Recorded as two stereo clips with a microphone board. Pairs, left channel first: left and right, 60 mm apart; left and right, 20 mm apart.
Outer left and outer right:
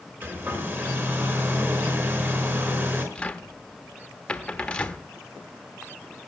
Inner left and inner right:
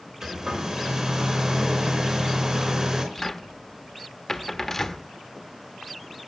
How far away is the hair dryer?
About 4.5 m.